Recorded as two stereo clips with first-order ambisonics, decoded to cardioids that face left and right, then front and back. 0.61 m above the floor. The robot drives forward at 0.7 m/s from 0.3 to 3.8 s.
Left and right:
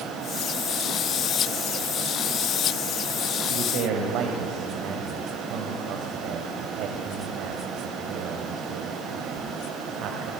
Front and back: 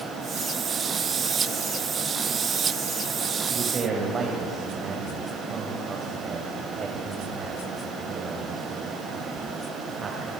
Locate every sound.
3.4 s a man speaking: 110° right, 2.5 m; by 10.3 s 115° right, 2.5 m